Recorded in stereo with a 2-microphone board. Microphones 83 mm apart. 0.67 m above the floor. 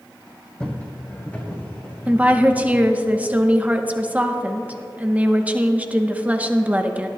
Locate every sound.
0.6 s footsteps: 10° left (ahead or behind), 1.9 m; by 2.8 s 30° left (ahead or behind), 3 m
2.1 s a woman speaking: 15° right (ahead or behind), 0.8 m